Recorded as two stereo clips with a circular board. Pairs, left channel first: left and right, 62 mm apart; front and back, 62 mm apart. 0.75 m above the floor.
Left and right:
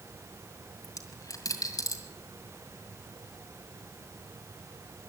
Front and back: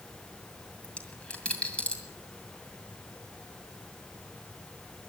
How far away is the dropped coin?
About 2.0 m.